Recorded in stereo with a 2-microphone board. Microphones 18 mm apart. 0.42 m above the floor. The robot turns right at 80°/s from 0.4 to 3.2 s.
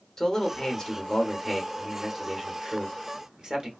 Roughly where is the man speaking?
Ahead left.